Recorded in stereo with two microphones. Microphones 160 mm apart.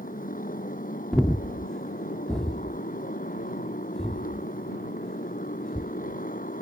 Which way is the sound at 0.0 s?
60° left (ahead or behind).